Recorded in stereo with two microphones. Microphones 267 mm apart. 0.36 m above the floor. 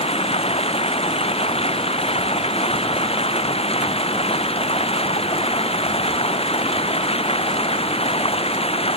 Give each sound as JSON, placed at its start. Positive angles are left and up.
{"t": 0.0, "sound": "running water", "side_deg": 20}